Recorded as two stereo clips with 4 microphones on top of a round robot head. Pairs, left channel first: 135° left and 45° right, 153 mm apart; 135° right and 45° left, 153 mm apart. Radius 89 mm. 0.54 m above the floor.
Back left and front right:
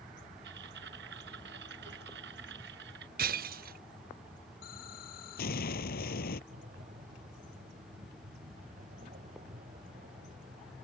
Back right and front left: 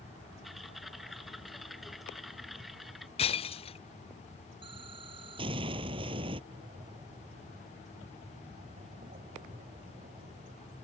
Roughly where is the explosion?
Left.